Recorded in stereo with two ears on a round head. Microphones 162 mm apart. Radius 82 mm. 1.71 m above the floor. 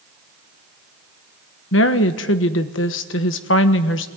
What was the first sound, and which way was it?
A woman speaking, 75° left (ahead or behind).